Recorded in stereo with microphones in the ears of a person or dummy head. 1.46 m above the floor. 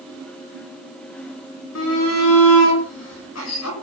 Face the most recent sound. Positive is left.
turn(degrees=70)  # may be behind; listen again after turning